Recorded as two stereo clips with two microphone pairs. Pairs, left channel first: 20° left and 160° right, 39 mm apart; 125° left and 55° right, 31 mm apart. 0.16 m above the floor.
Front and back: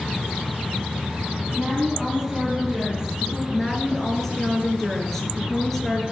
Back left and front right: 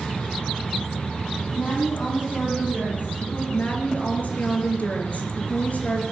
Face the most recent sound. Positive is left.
turn(degrees=100)